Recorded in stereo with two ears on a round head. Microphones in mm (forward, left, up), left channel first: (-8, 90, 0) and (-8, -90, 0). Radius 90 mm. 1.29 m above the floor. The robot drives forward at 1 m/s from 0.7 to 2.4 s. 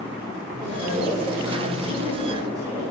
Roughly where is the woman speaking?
Right.